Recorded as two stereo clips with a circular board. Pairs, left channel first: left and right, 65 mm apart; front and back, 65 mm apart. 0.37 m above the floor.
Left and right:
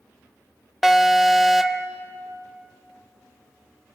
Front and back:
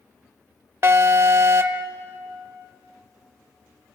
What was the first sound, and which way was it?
An alarm, straight behind.